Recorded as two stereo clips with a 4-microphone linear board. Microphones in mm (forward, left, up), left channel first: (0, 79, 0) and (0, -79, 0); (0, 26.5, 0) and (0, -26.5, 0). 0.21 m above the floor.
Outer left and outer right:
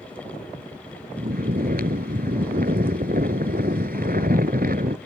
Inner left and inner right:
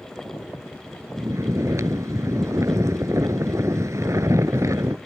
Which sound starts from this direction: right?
Snoring, at 1.2 s.